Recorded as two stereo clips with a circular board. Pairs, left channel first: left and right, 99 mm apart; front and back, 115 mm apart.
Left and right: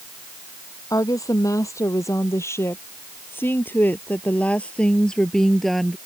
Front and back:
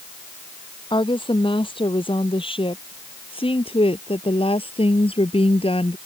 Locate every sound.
0.9 s a woman speaking: 40° left; by 6.0 s straight ahead